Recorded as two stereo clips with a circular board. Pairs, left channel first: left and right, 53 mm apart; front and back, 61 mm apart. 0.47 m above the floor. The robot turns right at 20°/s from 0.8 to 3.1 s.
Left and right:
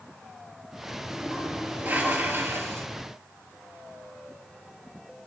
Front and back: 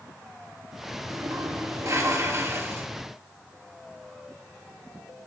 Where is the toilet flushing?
165° right, 2.5 m; by 2.9 s 130° right, 2.5 m.